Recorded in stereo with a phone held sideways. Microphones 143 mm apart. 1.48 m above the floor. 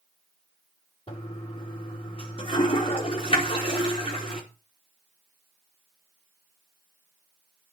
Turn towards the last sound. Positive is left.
turn(degrees=40)  # may be behind; listen again after turning